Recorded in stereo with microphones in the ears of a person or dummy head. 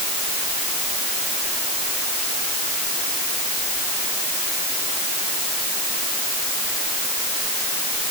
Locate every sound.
Only background noise.